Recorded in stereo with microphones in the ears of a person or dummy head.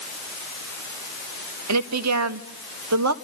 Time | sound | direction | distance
1.7 | a woman speaking | 80° right | 1.8 m